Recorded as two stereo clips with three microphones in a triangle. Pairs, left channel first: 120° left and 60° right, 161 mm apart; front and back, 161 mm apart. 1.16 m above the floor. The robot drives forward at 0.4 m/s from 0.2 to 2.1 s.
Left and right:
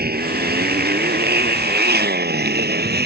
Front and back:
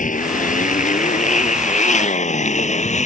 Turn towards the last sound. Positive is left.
turn(degrees=-45)